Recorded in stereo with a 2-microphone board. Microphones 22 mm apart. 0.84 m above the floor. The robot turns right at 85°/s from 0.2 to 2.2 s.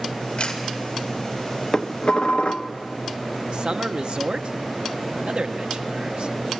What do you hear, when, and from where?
0.4 s a camera shutter: 55° left (ahead or behind), 2.5 m; by 0.6 s 40° left (ahead or behind), 2.5 m
1.7 s dishes clattering: 20° left, 0.8 m; by 2.7 s 60° left, 0.8 m
3.5 s a man speaking: 50° right (ahead or behind), 0.9 m